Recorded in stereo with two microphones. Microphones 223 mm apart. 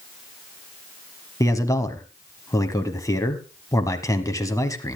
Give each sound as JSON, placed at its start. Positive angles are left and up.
{"t": 1.4, "sound": "a man speaking", "side_deg": 15, "distance_m": 1.1}